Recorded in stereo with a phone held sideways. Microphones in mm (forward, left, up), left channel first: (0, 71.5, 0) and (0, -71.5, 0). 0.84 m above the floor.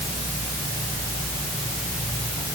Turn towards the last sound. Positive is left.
No sound to turn to.